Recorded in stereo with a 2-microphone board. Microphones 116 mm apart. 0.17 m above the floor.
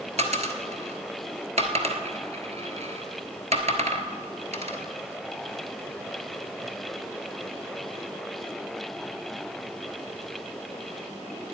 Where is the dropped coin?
65° right (ahead or behind), 1.2 m.